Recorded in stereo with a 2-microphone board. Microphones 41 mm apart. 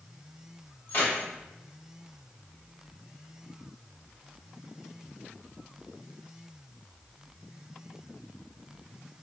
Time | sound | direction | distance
0.9 | keys jangling | 45° left (ahead or behind) | 1.7 m